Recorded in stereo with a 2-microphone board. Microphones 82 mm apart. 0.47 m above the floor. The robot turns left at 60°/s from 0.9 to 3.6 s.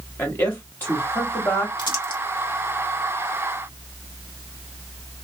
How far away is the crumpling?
About 1.6 m.